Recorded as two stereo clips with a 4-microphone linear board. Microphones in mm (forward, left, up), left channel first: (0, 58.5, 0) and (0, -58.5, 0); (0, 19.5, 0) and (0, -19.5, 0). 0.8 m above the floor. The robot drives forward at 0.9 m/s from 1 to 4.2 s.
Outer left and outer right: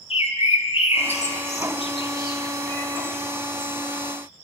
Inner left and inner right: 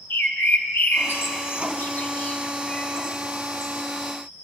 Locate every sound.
0.1 s a bird: 60° left (ahead or behind), 0.7 m; by 3.7 s 15° left (ahead or behind), 2 m